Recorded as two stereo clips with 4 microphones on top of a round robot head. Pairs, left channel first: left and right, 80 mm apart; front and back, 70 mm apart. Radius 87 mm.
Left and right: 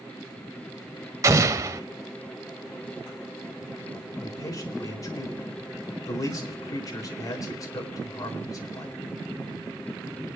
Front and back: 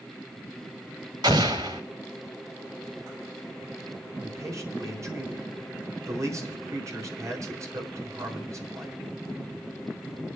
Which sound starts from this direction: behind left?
A man speaking, at 4.2 s.